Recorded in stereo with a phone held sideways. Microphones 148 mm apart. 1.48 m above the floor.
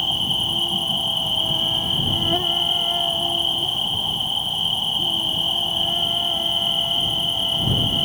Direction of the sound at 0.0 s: Centre (ahead or behind).